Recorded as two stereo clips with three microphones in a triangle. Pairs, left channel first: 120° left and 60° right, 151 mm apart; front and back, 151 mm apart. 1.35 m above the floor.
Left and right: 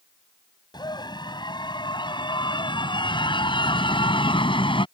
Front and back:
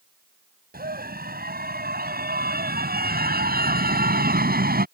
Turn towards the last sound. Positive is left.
turn(degrees=175)